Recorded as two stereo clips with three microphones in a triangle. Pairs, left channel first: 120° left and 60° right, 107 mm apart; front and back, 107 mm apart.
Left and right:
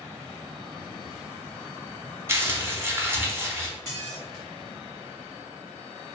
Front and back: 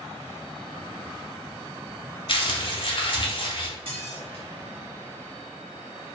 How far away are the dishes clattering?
About 1.7 m.